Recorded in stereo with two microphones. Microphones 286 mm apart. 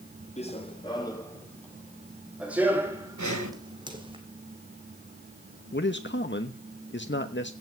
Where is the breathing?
80° right, 3 m.